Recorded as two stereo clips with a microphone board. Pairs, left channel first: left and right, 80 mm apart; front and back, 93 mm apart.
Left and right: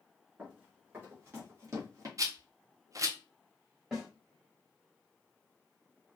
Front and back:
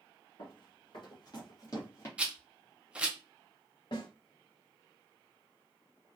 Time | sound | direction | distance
0.4 | running footsteps | 20° right | 2 m
2.2 | a rattle | 105° right | 0.6 m
3.9 | a snare drum | 10° right | 1.5 m